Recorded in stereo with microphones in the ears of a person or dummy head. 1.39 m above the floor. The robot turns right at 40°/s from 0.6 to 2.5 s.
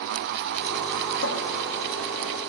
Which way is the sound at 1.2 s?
60° left (ahead or behind).